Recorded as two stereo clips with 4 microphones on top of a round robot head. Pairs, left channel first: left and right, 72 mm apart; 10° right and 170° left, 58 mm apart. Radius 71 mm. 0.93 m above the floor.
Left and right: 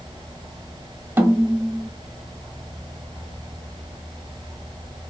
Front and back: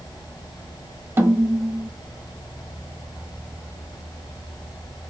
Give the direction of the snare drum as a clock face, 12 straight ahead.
5 o'clock.